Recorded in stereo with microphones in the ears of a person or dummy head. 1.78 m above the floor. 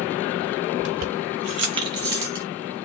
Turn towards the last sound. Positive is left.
turn(degrees=-15)  # may be behind; listen again after turning